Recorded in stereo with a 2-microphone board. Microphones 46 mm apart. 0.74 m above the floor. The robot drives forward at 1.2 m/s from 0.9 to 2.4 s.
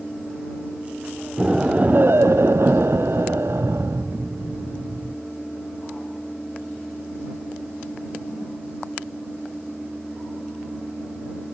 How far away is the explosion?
About 1.2 m.